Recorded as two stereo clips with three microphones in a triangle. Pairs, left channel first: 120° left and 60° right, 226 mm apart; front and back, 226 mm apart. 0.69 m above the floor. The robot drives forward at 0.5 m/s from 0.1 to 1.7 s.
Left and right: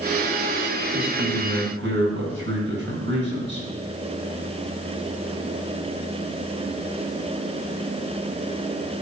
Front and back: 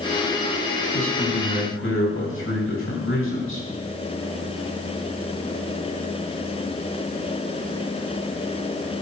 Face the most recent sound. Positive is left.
turn(degrees=-25)